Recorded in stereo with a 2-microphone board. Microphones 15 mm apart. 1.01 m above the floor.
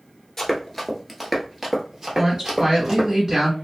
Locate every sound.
0.4 s running footsteps: 25° left (ahead or behind), 1.0 m; by 3.1 s 35° right (ahead or behind), 1.7 m
2.2 s a woman speaking: 40° right (ahead or behind), 1.9 m